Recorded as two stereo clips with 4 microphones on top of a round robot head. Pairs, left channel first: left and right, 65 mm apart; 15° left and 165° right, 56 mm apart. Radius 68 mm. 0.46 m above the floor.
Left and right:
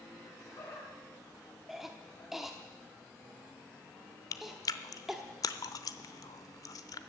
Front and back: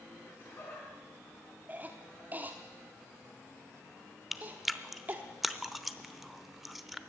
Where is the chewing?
105° left, 0.8 m.